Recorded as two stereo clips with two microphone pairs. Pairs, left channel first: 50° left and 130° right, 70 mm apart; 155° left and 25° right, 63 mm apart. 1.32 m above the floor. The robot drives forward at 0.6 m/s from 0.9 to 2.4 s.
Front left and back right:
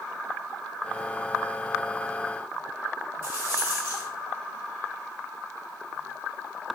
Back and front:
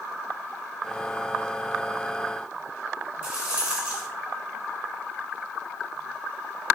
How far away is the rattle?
About 1.4 m.